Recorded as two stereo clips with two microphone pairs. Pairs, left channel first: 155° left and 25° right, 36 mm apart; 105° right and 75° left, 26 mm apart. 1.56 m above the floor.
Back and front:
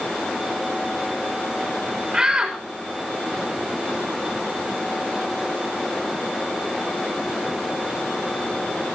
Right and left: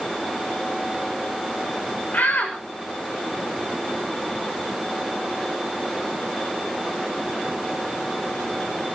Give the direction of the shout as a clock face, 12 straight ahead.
3 o'clock.